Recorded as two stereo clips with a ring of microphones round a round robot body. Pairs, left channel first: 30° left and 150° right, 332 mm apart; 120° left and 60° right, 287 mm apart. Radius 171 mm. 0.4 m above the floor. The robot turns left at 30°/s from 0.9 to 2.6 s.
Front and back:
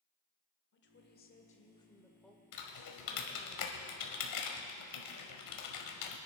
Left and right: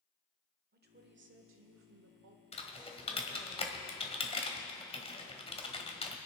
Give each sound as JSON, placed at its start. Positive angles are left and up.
{"t": 0.7, "sound": "a woman speaking", "azimuth_deg": -15, "distance_m": 1.4}
{"t": 2.5, "sound": "typing on a keyboard", "azimuth_deg": 55, "distance_m": 1.7}